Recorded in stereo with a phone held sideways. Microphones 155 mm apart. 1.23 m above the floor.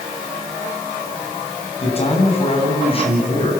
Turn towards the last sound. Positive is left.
turn(degrees=35)  # may be behind; listen again after turning